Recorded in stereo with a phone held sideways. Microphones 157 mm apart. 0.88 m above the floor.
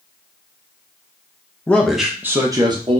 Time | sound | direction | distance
1.7 | a man speaking | 10° left (ahead or behind) | 0.7 m